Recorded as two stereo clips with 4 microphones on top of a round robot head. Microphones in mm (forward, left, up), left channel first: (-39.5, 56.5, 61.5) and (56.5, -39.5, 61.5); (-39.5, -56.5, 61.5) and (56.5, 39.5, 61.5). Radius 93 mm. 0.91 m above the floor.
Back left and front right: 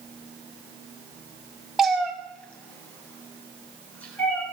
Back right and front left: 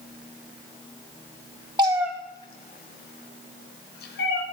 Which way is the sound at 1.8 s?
40° left.